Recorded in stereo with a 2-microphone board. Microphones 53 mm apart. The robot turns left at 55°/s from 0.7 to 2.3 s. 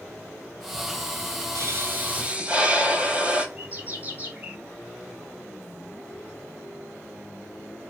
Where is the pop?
110° right, 0.8 m; by 3.5 s 155° right, 0.8 m.